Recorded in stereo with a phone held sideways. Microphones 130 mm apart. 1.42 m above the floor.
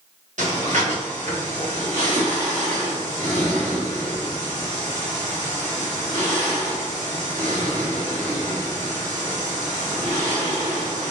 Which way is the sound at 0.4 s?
70° right (ahead or behind).